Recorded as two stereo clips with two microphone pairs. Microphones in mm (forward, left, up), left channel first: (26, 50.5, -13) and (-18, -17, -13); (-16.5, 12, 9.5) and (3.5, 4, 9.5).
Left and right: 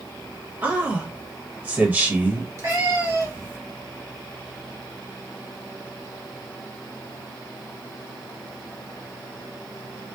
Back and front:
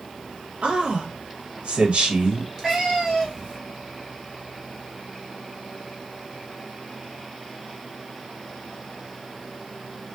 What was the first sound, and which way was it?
A man speaking, 55° right.